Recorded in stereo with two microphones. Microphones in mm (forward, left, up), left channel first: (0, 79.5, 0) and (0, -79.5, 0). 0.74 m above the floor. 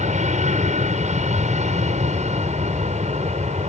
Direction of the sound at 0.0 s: 50° right (ahead or behind).